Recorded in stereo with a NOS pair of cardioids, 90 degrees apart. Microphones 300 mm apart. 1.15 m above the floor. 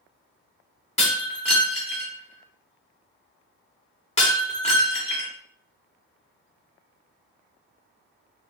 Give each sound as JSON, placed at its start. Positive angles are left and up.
{"t": 1.0, "sound": "breaking glass", "azimuth_deg": 20, "distance_m": 1.4}